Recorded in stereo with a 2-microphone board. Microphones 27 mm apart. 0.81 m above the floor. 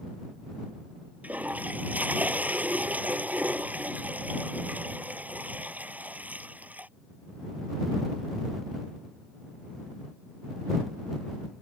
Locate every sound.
1.2 s a toilet flushing: 70° right (ahead or behind)